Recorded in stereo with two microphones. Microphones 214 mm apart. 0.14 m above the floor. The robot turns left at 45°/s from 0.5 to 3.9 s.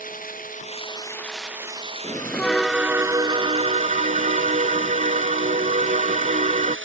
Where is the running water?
40° left; by 6.9 s 115° right.